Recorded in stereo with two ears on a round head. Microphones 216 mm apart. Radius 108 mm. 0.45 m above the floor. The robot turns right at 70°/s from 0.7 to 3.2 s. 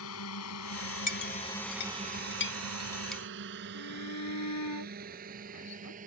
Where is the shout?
75° left (ahead or behind).